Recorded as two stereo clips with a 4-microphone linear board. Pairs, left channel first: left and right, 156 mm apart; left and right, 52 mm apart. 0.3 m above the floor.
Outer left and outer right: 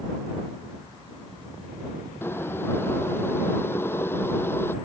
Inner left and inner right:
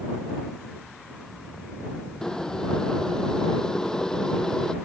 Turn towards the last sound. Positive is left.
turn(degrees=15)  # may be behind; listen again after turning